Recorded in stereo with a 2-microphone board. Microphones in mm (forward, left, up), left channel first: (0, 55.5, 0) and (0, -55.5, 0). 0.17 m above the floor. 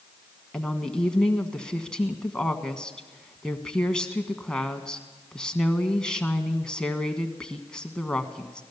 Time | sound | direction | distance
0.5 | a woman speaking | 10° left (ahead or behind) | 1.3 m